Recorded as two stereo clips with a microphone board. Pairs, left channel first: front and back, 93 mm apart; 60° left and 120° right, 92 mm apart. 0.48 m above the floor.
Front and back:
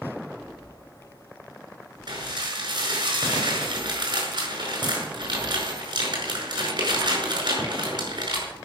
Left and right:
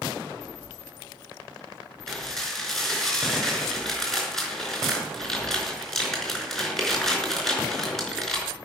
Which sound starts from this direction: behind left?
Dishes clattering, at 2.1 s.